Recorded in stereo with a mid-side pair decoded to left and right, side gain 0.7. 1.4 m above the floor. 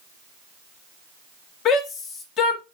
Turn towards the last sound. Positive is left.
turn(degrees=50)